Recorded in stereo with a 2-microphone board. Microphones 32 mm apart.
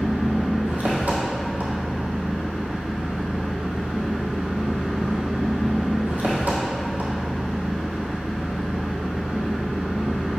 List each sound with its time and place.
0.0 s an engine running: 65° right (ahead or behind), 1.7 m